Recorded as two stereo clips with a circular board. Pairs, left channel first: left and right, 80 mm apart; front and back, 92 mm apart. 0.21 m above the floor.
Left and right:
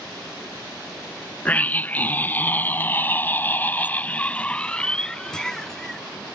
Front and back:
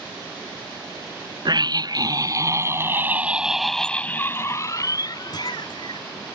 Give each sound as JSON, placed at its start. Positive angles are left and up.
{"t": 1.4, "sound": "a scream", "azimuth_deg": 155}